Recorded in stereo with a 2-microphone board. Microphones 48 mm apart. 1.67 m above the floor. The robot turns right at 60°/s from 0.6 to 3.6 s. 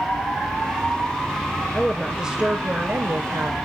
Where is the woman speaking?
165° left, 1.0 m; by 3.6 s 85° right, 1.0 m.